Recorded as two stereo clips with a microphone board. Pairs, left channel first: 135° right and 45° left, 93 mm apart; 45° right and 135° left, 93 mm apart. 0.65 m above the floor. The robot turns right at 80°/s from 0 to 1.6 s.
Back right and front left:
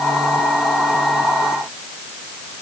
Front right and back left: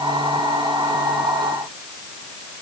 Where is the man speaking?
I don't hear a man speaking.